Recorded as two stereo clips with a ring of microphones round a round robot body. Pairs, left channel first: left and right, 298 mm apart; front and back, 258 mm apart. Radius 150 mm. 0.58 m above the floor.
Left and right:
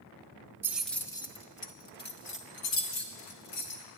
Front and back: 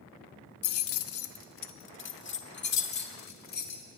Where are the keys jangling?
10° right, 0.7 m; by 3.8 s 55° left, 1.8 m.